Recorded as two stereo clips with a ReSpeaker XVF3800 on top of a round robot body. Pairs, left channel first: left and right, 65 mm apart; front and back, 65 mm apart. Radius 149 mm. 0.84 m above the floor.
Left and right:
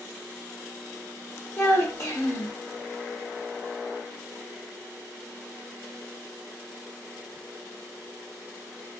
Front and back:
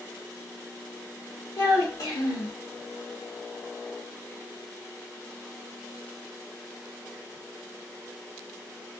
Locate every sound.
1.6 s a child speaking: 45° left, 1.2 m